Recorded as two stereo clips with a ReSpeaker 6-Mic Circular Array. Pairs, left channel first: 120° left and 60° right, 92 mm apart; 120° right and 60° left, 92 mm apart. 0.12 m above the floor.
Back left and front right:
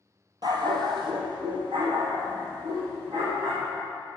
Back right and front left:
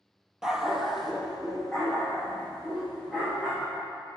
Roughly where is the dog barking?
Ahead right.